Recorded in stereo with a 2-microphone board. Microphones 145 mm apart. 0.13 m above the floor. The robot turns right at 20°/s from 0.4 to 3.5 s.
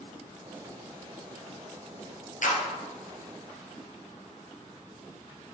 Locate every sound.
2.4 s a clap: 60° left (ahead or behind), 2 m